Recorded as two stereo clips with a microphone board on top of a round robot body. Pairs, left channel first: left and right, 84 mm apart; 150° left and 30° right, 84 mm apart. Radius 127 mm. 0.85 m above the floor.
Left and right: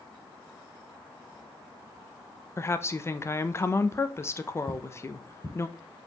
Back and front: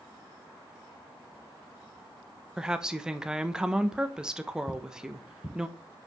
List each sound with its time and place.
2.6 s a woman speaking: 50° left, 1.2 m
4.7 s footsteps: 130° left, 1.5 m